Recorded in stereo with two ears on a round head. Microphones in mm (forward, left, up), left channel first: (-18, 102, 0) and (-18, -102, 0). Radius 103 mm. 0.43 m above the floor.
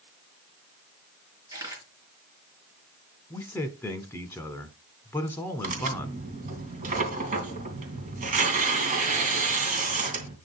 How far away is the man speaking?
About 1.1 m.